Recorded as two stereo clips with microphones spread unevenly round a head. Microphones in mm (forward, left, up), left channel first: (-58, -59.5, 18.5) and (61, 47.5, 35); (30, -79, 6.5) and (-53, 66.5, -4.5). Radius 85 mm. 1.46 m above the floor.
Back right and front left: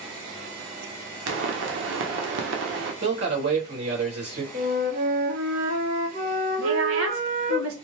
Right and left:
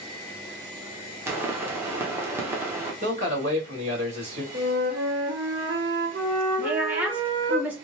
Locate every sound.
1.3 s a pop: 45° left, 1.1 m
3.0 s a man speaking: 65° left, 3 m
4.5 s a flute: 85° left, 2.5 m
6.6 s a woman speaking: 40° left, 1.6 m